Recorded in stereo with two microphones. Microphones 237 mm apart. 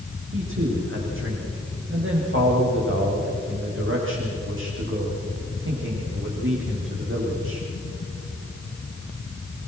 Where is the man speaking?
55° right (ahead or behind), 7 m.